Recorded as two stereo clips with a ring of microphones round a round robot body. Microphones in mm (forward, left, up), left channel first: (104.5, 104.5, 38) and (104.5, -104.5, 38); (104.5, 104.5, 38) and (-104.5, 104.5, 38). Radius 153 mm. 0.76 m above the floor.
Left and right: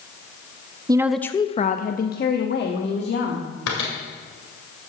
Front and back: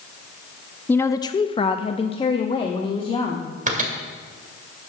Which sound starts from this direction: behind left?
A microwave, at 3.7 s.